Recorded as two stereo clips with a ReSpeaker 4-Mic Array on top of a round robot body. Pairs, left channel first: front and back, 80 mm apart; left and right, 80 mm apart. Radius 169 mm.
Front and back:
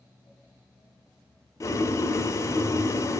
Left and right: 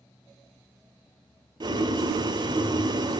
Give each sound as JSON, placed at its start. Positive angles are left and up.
{"t": 1.6, "sound": "boiling", "azimuth_deg": -55, "distance_m": 0.7}